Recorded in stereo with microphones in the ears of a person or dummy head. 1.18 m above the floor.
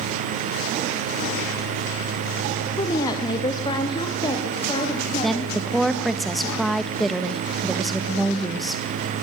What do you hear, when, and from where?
2.8 s a woman speaking: 25° left (ahead or behind), 1.4 m; by 5.6 s 30° left (ahead or behind), 3 m
5.2 s a woman speaking: 5° right (ahead or behind), 1.4 m